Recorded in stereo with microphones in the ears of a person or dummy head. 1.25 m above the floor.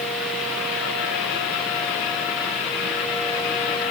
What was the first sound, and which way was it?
Only background noise.